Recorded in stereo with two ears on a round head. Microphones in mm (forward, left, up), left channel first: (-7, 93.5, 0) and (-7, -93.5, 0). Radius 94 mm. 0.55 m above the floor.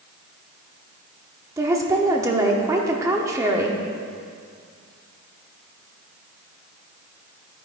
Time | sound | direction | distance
1.6 | a woman speaking | 15° right (ahead or behind) | 0.9 m